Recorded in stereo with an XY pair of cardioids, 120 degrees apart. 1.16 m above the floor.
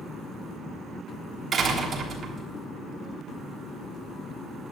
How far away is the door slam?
About 3.5 m.